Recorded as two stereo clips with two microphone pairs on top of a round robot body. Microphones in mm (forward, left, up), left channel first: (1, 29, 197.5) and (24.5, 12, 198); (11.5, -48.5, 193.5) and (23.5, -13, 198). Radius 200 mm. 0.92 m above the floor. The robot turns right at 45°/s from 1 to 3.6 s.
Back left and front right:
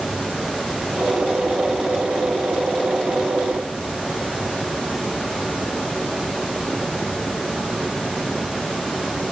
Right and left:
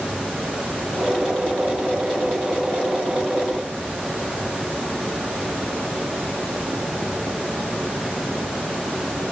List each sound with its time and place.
Only background noise.